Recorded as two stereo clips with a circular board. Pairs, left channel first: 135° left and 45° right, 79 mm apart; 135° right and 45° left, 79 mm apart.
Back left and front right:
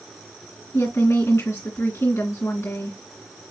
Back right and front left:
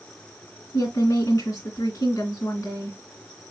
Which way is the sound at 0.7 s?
175° right.